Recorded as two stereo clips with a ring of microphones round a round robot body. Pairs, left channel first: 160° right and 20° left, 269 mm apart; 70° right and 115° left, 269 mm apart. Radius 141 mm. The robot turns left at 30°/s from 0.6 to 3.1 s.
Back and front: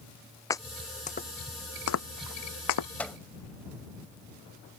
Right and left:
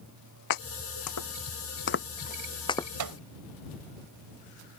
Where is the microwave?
120° left; by 3.2 s 115° left.